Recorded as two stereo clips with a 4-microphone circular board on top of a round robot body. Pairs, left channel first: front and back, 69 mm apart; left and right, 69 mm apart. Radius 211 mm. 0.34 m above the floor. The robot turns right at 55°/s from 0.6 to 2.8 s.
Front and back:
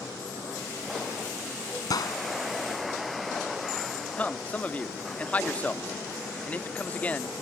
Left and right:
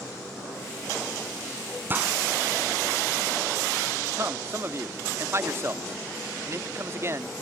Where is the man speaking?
60° right.